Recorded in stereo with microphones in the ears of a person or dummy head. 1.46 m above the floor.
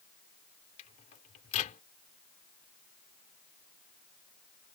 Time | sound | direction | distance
0.8 | a microwave | 35° left (ahead or behind) | ?